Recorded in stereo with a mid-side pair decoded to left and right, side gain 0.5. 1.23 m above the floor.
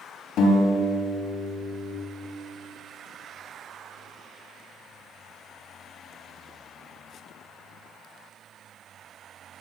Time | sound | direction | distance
0.4 | a guitar | 70° left | 3 m